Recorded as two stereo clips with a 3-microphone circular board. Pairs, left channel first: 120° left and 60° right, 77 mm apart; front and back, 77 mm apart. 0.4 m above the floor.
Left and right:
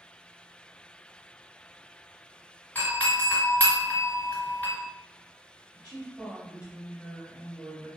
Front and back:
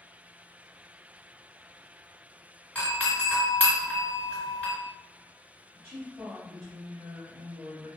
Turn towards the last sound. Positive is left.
turn(degrees=-135)